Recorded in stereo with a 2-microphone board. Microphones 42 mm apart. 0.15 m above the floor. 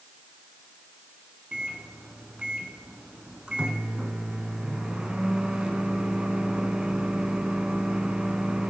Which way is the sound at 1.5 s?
25° right (ahead or behind).